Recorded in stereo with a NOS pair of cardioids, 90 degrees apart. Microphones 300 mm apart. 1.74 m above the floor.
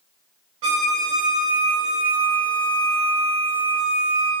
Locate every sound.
0.6 s a violin: 50° right, 1.1 m